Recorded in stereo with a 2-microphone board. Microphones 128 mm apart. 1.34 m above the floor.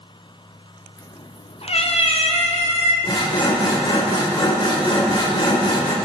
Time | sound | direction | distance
1.0 | a cat meowing | 30° left (ahead or behind) | 0.6 m
3.0 | sawing | 35° left (ahead or behind) | 2.5 m